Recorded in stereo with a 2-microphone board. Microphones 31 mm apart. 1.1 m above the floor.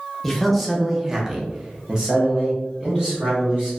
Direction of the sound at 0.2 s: 5° left (ahead or behind).